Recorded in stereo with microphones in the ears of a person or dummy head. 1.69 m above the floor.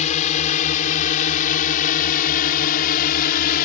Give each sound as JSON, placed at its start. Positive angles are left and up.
{"t": 0.0, "sound": "a drone", "side_deg": 40}